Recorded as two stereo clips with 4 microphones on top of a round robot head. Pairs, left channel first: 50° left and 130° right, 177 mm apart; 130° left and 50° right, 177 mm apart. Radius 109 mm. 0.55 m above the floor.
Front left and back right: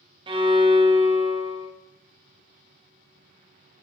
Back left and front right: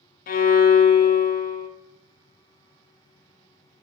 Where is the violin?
170° left, 0.5 m.